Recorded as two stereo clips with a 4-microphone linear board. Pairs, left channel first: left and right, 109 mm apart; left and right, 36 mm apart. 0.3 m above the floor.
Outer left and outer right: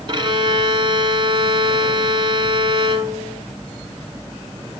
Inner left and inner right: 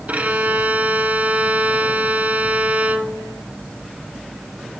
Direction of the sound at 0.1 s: 50° right (ahead or behind).